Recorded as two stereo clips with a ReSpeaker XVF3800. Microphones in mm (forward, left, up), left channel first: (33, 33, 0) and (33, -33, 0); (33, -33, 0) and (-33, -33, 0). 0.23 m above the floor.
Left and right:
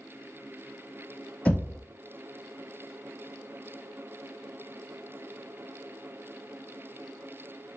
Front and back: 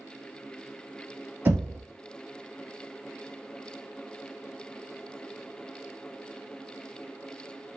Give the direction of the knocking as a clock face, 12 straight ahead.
7 o'clock.